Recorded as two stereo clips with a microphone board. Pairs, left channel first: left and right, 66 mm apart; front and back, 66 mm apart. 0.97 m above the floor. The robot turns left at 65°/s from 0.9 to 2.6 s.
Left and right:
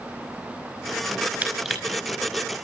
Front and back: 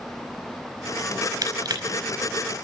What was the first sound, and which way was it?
Crushing, 150° right.